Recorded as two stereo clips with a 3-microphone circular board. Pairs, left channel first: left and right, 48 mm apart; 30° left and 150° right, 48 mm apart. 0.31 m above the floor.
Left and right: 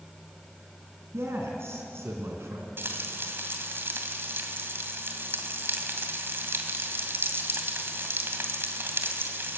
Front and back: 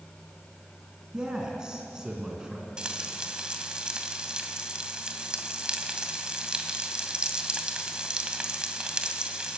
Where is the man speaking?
75° right, 3.5 m.